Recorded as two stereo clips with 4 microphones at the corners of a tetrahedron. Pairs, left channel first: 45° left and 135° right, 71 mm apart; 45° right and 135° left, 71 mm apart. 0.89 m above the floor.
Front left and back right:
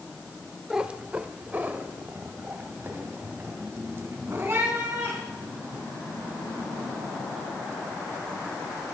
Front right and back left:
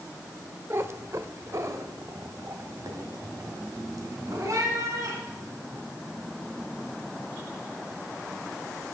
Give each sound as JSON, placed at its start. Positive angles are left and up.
{"t": 0.7, "sound": "a cat meowing", "azimuth_deg": 155, "distance_m": 0.6}